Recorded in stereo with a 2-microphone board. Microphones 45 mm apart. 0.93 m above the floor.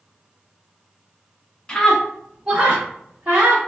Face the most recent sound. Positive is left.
turn(degrees=-40)  # may be behind; listen again after turning